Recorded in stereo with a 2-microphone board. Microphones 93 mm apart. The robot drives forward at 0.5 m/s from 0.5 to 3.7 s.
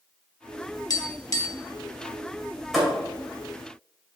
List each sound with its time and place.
0.9 s tapping: 45° left (ahead or behind), 0.9 m; by 1.6 s 35° left (ahead or behind), 1.0 m
2.7 s a thud: centre (ahead or behind), 2 m; by 3.0 s 5° left (ahead or behind), 2 m